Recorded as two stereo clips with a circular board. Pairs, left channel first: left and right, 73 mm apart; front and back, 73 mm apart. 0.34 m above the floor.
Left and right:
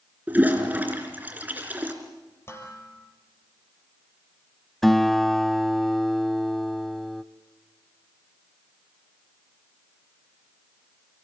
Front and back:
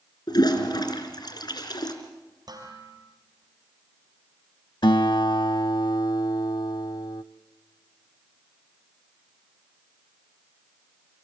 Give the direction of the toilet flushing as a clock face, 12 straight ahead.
1 o'clock.